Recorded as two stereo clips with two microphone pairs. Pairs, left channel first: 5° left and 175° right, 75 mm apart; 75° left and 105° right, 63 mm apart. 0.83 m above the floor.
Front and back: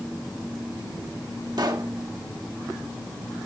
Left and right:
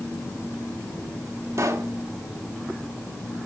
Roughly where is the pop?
Behind right.